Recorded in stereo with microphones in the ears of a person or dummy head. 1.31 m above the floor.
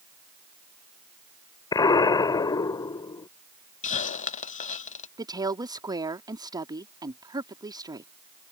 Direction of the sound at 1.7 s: 25° left (ahead or behind).